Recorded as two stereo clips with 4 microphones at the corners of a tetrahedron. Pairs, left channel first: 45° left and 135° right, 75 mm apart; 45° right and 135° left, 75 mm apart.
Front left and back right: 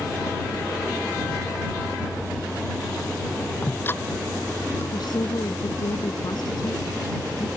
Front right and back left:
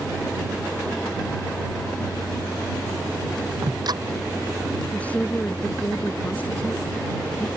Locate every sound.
3.6 s ticking: 110° left
4.9 s a woman speaking: 25° left